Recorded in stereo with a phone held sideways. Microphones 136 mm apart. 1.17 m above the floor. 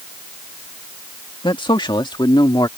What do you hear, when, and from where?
1.4 s a man speaking: 40° left (ahead or behind); by 2.7 s 30° left (ahead or behind)